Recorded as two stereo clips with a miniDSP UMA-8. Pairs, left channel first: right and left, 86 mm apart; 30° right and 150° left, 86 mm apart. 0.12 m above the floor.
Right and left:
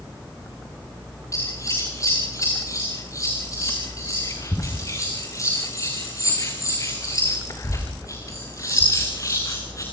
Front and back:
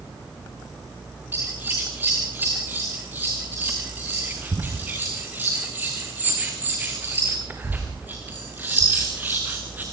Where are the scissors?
140° right, 4 m.